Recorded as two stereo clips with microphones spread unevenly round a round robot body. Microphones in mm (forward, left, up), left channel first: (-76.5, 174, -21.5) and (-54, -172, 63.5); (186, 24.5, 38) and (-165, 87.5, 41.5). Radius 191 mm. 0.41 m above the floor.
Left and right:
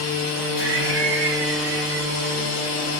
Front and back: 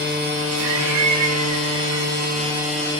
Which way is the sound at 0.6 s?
145° right.